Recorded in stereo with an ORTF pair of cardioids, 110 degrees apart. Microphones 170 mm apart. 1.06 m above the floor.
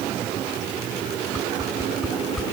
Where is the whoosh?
Straight ahead, 1.3 m.